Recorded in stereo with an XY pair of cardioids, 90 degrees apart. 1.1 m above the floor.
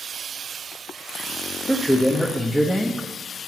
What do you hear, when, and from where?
1.7 s a man speaking: 5° left, 0.9 m